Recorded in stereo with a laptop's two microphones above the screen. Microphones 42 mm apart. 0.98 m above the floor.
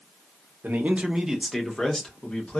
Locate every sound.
0.6 s a man speaking: 55° right (ahead or behind), 0.7 m; by 2.6 s 30° left (ahead or behind), 1.3 m